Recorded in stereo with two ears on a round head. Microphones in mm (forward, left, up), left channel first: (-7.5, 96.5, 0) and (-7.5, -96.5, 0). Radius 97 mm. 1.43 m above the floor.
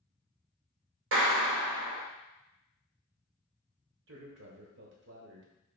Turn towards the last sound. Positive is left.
turn(degrees=-55)  # may be behind; listen again after turning